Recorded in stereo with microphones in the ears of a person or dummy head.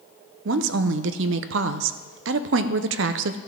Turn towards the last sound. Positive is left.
turn(degrees=-65)  # may be behind; listen again after turning